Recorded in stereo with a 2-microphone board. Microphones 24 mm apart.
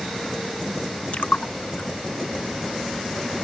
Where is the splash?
65° left (ahead or behind).